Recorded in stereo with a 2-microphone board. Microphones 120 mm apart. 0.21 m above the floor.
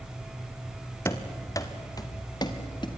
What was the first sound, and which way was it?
Running footsteps, 25° left (ahead or behind).